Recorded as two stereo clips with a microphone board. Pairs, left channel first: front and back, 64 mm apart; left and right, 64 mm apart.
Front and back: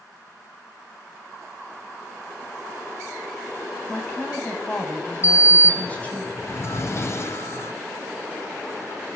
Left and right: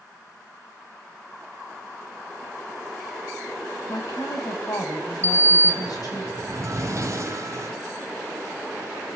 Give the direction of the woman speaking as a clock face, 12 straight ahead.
10 o'clock.